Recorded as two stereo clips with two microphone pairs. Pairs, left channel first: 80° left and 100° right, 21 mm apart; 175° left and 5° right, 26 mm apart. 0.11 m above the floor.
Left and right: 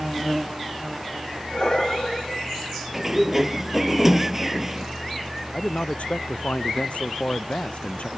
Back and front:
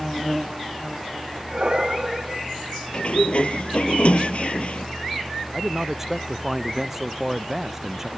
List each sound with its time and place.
1.5 s breathing: 40° left
2.9 s a sliding door: 175° right
5.5 s a man speaking: 75° left